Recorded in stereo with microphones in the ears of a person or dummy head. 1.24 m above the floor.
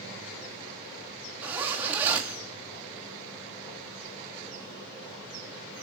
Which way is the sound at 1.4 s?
10° right (ahead or behind).